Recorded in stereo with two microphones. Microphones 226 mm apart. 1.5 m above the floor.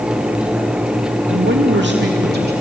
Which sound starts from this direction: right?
A man speaking, at 1.3 s.